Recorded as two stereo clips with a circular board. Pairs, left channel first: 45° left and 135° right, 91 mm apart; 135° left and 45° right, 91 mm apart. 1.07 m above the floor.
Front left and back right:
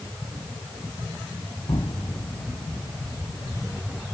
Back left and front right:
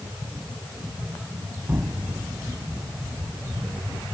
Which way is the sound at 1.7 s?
20° left.